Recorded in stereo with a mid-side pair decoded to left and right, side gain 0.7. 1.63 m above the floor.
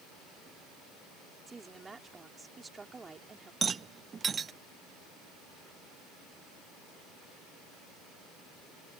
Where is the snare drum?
I don't hear a snare drum.